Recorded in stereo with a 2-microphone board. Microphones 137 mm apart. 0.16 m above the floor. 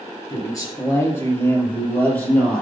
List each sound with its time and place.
0.3 s a man speaking: 30° left (ahead or behind), 3.5 m; by 2.6 s 5° left (ahead or behind), 3.5 m